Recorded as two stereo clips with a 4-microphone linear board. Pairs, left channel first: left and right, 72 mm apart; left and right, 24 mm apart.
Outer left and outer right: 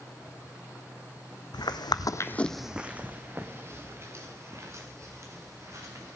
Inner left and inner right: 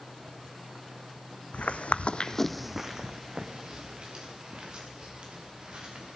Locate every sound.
1.5 s footsteps: 80° left, 0.8 m; by 6.2 s 45° right (ahead or behind), 4 m